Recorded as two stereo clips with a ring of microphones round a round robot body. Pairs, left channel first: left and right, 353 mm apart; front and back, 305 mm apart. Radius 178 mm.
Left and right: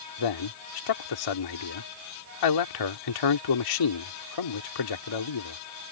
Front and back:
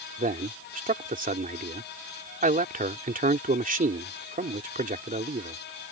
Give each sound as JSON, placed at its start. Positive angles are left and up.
{"t": 0.2, "sound": "a man speaking", "azimuth_deg": 115}